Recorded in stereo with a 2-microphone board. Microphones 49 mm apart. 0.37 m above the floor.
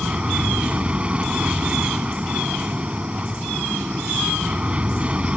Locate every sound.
0.0 s an aircraft: 25° right (ahead or behind)